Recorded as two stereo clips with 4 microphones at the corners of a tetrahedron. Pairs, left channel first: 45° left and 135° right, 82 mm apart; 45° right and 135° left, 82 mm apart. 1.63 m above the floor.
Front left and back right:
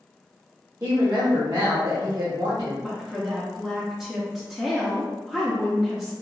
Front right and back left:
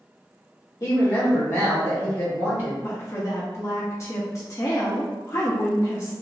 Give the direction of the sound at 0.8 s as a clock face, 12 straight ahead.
3 o'clock.